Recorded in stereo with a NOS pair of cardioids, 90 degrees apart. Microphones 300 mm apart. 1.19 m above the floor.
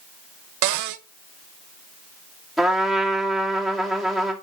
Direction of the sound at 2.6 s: Straight ahead.